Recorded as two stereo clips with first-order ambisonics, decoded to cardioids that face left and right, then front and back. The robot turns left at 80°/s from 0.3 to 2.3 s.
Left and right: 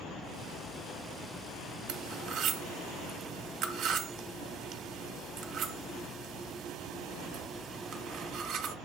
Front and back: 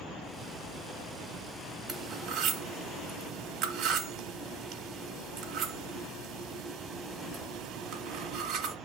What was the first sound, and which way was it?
Cutlery clinking, 95° right.